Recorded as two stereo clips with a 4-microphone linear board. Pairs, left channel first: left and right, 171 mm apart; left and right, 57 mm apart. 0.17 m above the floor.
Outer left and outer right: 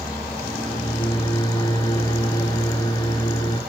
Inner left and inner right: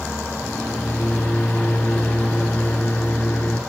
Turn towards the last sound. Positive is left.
turn(degrees=20)  # may be behind; listen again after turning